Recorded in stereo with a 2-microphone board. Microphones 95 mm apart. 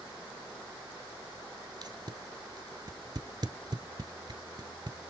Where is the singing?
No singing in this recording.